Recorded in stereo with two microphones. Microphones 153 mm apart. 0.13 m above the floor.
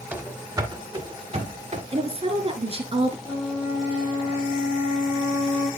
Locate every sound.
0.1 s running footsteps: 10° right (ahead or behind), 1.9 m; by 1.8 s 50° right (ahead or behind), 3 m
1.9 s a woman speaking: 40° right (ahead or behind), 1.5 m
3.2 s a flute: 20° right (ahead or behind), 6.5 m